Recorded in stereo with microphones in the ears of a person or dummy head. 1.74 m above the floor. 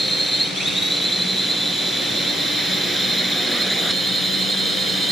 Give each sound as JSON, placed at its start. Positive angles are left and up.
{"t": 0.0, "sound": "a drone", "side_deg": 0}